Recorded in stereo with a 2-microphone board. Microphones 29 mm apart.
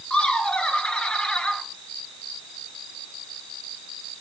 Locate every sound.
0.1 s laughter: 35° left (ahead or behind), 1.3 m